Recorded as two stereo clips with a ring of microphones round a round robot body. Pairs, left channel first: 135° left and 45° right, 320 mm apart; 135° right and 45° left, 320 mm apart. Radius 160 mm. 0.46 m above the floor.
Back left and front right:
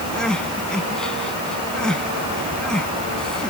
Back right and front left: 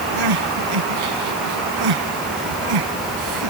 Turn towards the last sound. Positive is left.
turn(degrees=45)